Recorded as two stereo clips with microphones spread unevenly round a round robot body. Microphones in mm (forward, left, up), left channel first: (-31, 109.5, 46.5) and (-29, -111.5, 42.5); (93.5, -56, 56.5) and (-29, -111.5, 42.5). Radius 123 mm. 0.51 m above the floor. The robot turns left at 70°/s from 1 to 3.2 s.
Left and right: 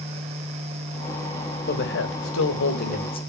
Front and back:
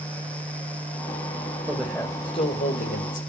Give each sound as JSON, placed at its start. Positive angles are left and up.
{"t": 1.7, "sound": "a man speaking", "azimuth_deg": 130, "distance_m": 3.5}